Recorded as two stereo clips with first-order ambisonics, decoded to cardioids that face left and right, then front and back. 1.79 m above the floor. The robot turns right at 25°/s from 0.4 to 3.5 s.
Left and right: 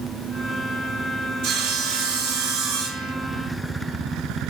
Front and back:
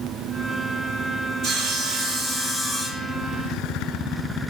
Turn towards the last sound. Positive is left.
turn(degrees=-70)